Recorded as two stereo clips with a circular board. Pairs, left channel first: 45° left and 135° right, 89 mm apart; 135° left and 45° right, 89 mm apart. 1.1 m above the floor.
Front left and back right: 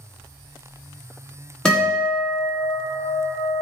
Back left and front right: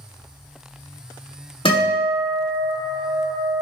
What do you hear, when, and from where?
1.6 s a guitar: 125° left, 1.5 m